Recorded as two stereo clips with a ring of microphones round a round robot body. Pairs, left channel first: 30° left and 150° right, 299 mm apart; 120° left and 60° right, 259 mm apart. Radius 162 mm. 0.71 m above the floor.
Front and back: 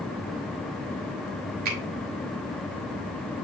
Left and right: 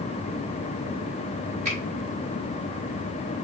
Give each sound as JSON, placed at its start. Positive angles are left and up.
{"t": 1.6, "sound": "a finger snap", "azimuth_deg": -125, "distance_m": 2.0}